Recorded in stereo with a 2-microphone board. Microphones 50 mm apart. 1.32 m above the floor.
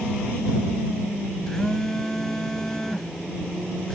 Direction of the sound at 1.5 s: 10° left (ahead or behind).